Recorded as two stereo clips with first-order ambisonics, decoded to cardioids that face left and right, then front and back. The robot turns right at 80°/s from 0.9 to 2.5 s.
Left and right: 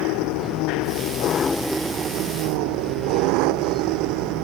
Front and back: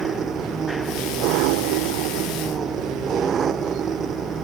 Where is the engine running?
115° left; by 4.5 s 115° right.